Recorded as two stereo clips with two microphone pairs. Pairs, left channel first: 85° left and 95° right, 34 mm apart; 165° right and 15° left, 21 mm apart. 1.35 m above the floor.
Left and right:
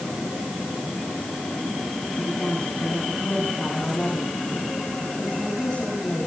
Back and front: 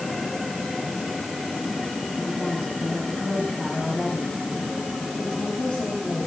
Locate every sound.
2.2 s a woman speaking: 170° left, 9 m